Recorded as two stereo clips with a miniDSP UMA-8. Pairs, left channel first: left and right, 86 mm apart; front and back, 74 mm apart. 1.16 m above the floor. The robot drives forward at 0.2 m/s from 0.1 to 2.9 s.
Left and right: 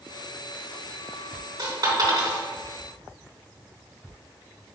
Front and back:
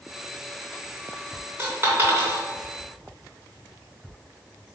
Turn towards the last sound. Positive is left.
turn(degrees=-125)